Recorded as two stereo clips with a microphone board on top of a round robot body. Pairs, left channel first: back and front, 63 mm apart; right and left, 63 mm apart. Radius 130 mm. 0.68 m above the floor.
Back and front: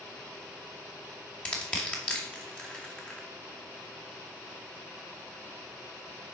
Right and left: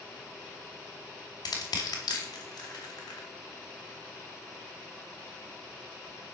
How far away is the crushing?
About 2 m.